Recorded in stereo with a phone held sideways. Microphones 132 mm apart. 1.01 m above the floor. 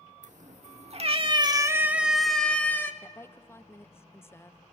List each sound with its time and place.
0.2 s a cat meowing: 70° right (ahead or behind), 1.4 m; by 2.9 s 20° left (ahead or behind), 1.5 m
3.0 s a woman speaking: 20° left (ahead or behind), 0.8 m